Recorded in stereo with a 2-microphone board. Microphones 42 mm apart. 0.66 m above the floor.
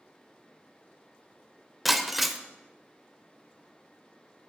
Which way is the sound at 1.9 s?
5° right (ahead or behind).